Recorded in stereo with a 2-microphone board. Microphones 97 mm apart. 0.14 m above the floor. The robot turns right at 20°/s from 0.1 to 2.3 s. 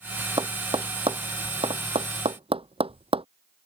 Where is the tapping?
50° right (ahead or behind); by 3.2 s 80° right.